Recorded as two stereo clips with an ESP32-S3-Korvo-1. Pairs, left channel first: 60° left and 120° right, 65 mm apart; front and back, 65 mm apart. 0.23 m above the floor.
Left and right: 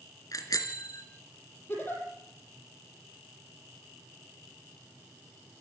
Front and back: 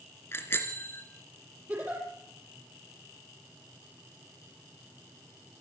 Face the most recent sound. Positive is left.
turn(degrees=115)